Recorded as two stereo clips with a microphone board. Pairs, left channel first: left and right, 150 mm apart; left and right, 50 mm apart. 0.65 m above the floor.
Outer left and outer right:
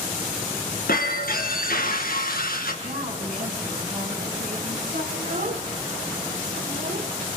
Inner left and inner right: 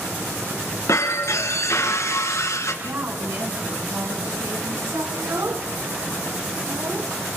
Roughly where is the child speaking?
Right.